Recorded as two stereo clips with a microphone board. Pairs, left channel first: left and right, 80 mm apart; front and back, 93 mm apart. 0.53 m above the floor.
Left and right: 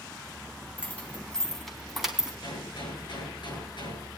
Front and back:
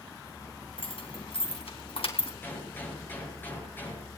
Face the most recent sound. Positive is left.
turn(degrees=70)